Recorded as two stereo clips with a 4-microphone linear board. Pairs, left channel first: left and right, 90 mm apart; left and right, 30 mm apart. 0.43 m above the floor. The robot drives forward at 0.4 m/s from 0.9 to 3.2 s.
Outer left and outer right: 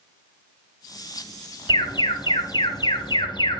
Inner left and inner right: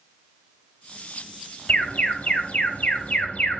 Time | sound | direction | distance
1.7 | an alarm | 60° left (ahead or behind) | 3 m